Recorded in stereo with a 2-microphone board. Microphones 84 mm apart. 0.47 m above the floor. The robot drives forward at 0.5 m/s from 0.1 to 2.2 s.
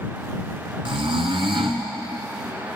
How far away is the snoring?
About 1.4 m.